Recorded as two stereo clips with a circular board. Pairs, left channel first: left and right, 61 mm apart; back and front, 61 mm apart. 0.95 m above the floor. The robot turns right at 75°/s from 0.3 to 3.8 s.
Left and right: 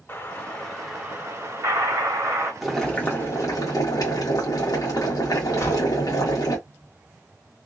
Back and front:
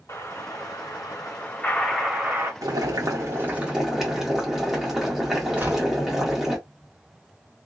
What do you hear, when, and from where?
0.1 s an explosion: 145° left, 2.0 m; by 2.5 s 50° right, 2.0 m
2.6 s boiling: 5° right, 1.3 m; by 6.6 s 85° left, 1.3 m
5.6 s a gunshot: 60° left, 1.7 m